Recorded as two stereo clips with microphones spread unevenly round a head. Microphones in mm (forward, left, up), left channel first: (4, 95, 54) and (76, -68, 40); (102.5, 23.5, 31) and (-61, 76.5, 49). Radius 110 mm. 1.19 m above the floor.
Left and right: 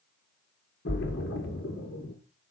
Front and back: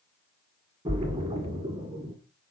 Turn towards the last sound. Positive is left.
turn(degrees=105)